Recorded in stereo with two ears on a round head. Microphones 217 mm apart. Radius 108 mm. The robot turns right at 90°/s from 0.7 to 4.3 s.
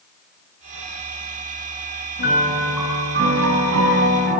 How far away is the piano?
About 6 m.